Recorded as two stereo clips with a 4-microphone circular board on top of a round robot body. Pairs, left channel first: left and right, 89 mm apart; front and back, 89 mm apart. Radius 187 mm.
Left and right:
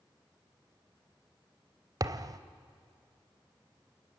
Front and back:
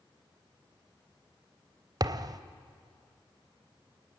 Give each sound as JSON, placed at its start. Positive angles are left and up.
{"t": 2.0, "sound": "a thud", "azimuth_deg": -135, "distance_m": 0.9}